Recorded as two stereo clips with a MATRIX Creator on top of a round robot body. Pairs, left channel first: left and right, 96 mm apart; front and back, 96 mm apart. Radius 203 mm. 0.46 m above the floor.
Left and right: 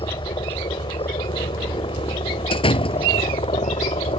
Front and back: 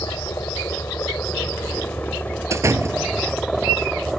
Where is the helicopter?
60° left; by 4.2 s 90° left.